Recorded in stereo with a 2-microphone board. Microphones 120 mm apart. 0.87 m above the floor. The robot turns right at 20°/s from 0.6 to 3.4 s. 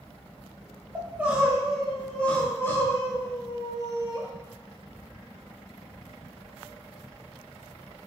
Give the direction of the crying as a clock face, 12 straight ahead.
1 o'clock.